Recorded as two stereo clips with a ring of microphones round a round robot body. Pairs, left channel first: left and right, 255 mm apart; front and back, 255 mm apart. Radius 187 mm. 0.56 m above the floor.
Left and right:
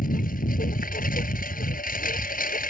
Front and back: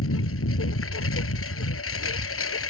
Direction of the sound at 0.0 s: 35° left.